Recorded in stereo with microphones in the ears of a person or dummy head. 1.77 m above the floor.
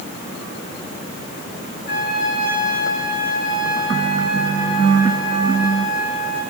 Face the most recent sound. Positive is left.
turn(degrees=60)  # may be behind; listen again after turning